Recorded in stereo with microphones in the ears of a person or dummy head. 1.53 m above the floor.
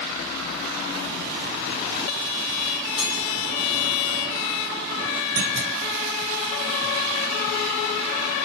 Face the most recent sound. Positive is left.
turn(degrees=-55)  # may be behind; listen again after turning